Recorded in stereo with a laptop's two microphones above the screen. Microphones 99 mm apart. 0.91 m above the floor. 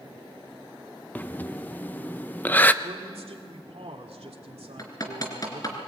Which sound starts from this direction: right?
A man speaking, at 2.8 s.